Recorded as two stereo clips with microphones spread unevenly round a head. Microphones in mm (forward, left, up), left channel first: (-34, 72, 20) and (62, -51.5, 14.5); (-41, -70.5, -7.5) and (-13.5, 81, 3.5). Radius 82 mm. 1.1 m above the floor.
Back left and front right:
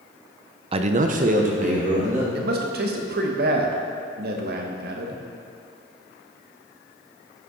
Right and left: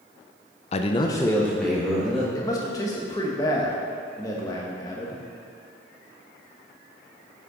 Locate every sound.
0.7 s a man speaking: 90° right, 0.5 m; by 2.2 s 10° right, 1.6 m
2.4 s a man speaking: 30° right, 1.1 m